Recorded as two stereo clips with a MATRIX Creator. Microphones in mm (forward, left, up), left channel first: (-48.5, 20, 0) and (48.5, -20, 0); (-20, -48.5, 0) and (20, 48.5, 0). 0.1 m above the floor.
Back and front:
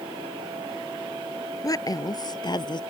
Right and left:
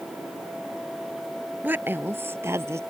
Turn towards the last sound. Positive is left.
turn(degrees=125)